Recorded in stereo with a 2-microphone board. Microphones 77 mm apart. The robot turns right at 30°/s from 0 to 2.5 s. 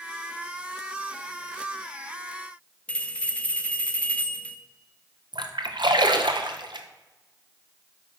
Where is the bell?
15° left (ahead or behind), 0.7 m.